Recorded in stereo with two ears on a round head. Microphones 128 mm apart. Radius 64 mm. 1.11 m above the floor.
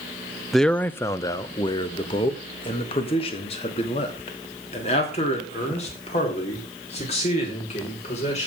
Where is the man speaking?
Centre (ahead or behind), 0.5 m; by 8.5 s 45° left (ahead or behind), 4.5 m.